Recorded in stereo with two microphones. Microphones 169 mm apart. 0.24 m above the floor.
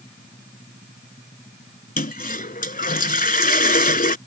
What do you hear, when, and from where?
2.0 s a toilet flushing: 60° left (ahead or behind)